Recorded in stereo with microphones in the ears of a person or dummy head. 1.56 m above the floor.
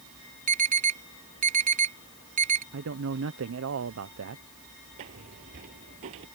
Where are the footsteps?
30° right (ahead or behind).